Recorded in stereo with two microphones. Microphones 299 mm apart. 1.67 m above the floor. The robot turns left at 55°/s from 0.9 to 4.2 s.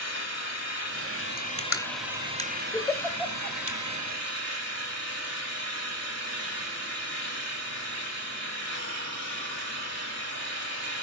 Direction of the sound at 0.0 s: 60° left.